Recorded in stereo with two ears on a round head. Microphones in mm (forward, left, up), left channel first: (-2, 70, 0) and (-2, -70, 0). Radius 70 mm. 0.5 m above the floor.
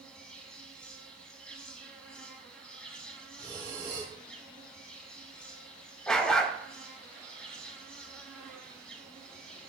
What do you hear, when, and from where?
0.0 s an insect: 5° left (ahead or behind), 0.9 m
3.4 s breathing: 25° right (ahead or behind), 2 m
6.1 s a dog barking: 5° left (ahead or behind), 0.7 m